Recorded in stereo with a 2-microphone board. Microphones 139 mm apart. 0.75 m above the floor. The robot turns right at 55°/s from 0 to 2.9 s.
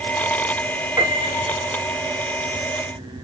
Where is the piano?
155° right, 0.7 m; by 1.6 s 120° right, 0.7 m.